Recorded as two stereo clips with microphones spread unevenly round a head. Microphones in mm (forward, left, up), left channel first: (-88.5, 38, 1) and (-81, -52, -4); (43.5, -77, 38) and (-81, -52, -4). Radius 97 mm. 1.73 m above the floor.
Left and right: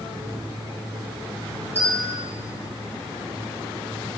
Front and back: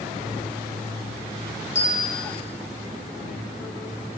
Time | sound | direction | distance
1.8 | a bell | 10° right | 3 m